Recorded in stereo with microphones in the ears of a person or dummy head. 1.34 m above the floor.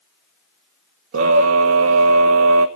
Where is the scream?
70° right (ahead or behind), 1.1 m.